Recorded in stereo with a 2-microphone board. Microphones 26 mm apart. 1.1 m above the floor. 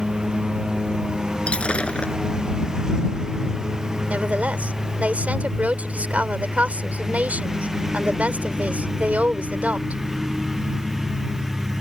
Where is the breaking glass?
50° left (ahead or behind).